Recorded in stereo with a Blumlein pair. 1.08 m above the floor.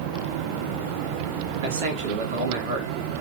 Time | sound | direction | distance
1.6 | a man speaking | 50° right | 2.0 m